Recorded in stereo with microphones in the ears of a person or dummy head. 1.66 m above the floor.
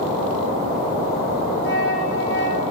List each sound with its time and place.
1.6 s a flute: 60° left (ahead or behind), 7.5 m